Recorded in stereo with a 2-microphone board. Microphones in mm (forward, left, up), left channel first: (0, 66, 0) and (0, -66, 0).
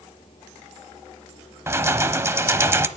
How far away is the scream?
I don't hear a scream.